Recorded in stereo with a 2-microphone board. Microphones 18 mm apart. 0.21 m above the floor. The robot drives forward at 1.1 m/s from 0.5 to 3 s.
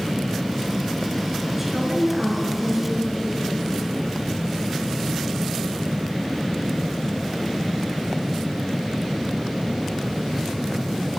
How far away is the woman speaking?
About 2.5 m.